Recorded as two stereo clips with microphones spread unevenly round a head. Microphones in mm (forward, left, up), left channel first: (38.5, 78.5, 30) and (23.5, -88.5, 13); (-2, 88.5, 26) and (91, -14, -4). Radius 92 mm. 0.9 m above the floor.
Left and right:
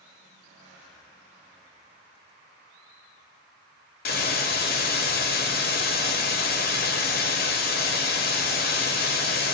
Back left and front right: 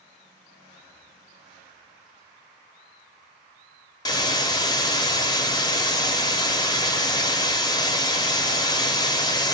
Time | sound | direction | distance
4.0 | a hiss | 85° left | 0.6 m